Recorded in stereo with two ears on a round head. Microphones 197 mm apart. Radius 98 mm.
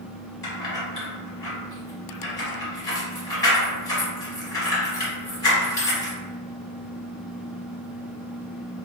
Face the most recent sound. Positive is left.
turn(degrees=20)  # may be behind; listen again after turning